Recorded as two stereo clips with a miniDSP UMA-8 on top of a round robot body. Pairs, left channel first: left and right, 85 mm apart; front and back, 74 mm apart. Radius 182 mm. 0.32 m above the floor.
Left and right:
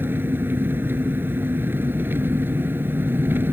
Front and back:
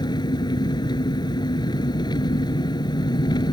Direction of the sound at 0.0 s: 25° right.